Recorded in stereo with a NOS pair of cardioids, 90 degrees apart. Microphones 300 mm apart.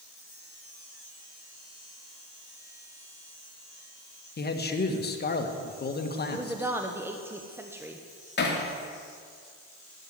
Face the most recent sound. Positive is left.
turn(degrees=35)